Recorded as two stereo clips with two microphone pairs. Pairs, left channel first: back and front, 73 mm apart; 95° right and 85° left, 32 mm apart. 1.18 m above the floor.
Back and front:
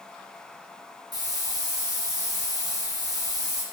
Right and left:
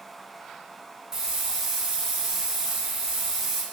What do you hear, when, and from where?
1.1 s a hiss: 15° left, 0.6 m